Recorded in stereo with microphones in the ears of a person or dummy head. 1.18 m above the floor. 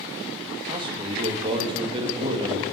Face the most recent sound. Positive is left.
turn(degrees=-30)  # may be behind; listen again after turning